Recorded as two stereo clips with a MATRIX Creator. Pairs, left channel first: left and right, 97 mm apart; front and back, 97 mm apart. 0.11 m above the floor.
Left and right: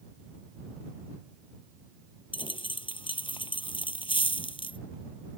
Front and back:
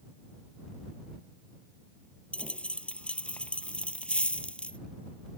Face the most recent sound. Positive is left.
turn(degrees=75)